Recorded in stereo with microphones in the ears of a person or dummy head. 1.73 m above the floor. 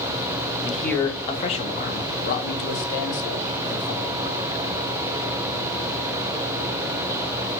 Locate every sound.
0.6 s a man speaking: 5° right (ahead or behind), 0.6 m; by 4.4 s 75° left (ahead or behind), 1.9 m